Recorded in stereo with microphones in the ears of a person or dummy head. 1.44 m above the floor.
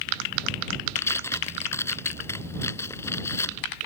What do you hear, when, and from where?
1.0 s tearing paper: 15° left (ahead or behind)